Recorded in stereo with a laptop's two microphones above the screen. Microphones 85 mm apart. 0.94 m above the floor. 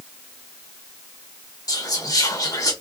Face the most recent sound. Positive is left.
turn(degrees=45)  # may be behind; listen again after turning